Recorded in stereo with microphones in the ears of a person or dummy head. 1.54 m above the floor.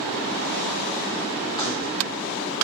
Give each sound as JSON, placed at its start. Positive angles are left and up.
{"t": 1.6, "sound": "keys jangling", "side_deg": 25, "distance_m": 1.3}